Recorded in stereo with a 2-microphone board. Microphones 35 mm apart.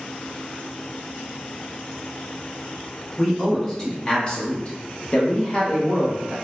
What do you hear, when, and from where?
3.2 s a man speaking: 10° left (ahead or behind), 1.4 m; by 6.3 s 25° left (ahead or behind), 1.2 m